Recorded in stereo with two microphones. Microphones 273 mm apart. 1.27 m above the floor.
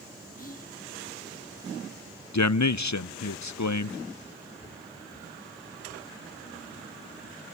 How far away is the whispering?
About 2.0 m.